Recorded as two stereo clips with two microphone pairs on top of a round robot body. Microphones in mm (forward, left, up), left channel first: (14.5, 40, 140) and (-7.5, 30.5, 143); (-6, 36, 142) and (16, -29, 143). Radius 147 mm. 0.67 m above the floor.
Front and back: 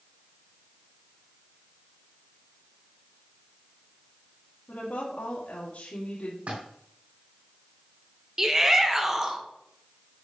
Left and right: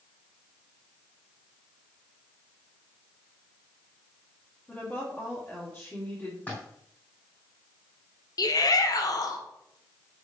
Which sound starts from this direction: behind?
A splash, at 6.5 s.